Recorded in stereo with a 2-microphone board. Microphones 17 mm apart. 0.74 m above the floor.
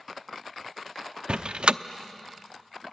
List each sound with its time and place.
1.3 s a door slam: 65° right (ahead or behind), 0.7 m